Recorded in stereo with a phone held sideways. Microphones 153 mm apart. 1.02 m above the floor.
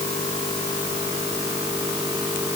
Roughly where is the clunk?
No clunk in this recording.